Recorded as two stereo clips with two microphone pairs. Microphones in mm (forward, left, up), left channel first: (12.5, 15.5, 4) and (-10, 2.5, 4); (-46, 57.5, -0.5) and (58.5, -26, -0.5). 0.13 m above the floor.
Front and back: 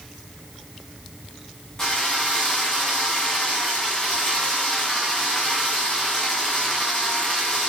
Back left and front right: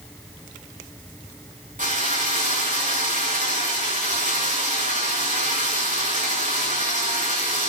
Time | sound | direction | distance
1.8 | a drill | 35° right | 7.5 m